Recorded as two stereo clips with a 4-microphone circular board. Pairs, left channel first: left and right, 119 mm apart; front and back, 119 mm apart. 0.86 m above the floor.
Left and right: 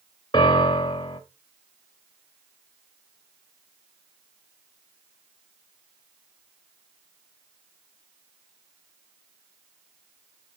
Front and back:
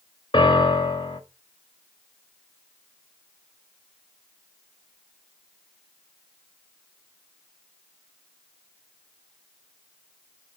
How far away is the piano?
About 1.1 m.